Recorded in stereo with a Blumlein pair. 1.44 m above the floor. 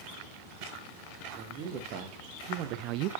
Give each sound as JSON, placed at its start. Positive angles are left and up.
{"t": 1.3, "sound": "a man speaking", "azimuth_deg": -40, "distance_m": 2.5}